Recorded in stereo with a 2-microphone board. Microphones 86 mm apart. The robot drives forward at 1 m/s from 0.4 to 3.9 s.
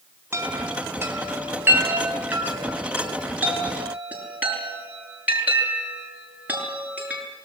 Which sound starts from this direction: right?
A chime, at 0.3 s.